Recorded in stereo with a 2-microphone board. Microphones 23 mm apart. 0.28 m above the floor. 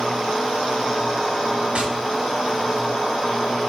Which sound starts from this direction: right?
Tapping, at 1.8 s.